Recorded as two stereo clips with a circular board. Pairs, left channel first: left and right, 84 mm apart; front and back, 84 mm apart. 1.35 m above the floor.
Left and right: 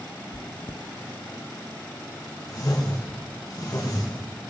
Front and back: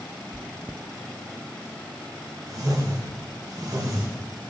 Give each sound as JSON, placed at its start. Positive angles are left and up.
{"t": 0.3, "sound": "chewing", "azimuth_deg": 105, "distance_m": 0.5}
{"t": 2.5, "sound": "a whoosh", "azimuth_deg": 135, "distance_m": 2.0}